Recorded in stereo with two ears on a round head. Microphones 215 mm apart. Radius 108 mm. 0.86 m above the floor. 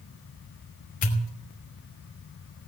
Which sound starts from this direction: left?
A pop, at 1.0 s.